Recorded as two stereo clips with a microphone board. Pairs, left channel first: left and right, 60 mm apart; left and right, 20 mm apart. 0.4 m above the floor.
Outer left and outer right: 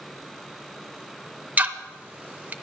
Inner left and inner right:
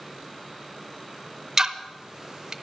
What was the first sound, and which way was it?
Ticking, 30° right (ahead or behind).